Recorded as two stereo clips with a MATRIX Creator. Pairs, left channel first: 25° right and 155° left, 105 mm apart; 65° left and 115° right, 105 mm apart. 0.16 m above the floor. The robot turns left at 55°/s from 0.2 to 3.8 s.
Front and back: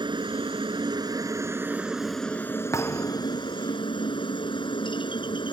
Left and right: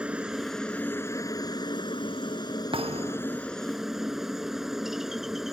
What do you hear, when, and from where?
0.0 s a helicopter: 170° left; by 5.5 s 25° right
2.7 s a thud: 85° right; by 3.4 s 120° right